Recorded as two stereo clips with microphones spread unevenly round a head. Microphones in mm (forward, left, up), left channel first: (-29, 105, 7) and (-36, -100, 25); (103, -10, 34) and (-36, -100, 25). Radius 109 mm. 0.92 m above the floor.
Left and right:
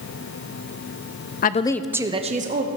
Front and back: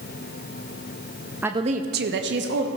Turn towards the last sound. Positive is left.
turn(degrees=-140)